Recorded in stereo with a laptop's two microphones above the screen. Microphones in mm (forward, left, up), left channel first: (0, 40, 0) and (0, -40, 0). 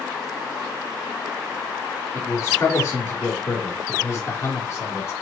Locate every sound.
2.1 s a man speaking: 40° left (ahead or behind), 2 m